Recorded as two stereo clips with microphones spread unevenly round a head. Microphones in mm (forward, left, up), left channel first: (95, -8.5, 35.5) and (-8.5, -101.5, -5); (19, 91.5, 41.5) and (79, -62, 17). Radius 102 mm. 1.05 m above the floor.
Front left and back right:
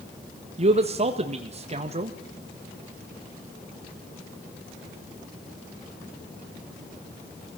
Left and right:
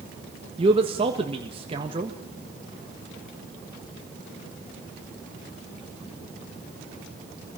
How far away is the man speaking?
About 1.6 m.